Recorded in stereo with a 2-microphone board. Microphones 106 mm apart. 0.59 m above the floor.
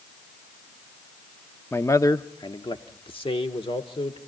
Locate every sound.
1.7 s a man speaking: 20° left (ahead or behind), 0.6 m; by 4.2 s 60° left (ahead or behind), 1.5 m